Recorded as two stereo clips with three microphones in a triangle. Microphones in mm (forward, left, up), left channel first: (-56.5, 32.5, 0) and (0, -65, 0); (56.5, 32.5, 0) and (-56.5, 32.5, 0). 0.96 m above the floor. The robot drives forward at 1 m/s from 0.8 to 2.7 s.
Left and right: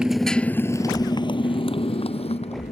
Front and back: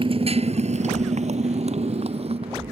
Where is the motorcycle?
145° right; by 2.7 s 145° left.